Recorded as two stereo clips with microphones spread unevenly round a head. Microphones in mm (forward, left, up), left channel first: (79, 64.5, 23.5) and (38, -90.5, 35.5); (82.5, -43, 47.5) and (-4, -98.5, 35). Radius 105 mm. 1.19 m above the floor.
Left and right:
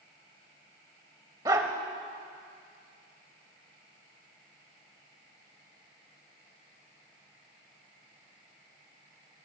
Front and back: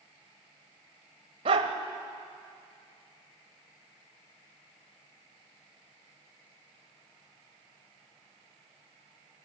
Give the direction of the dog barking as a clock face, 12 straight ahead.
6 o'clock.